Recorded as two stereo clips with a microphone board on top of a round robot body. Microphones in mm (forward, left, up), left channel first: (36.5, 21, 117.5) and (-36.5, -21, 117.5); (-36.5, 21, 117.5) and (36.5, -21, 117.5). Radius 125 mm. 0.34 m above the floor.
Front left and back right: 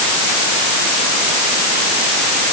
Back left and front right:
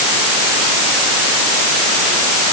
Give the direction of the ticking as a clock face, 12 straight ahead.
I don't hear ticking.